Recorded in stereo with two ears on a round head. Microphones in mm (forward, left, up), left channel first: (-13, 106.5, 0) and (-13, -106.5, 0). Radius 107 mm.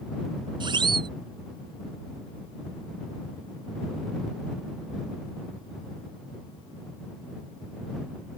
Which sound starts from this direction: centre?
A siren, at 0.6 s.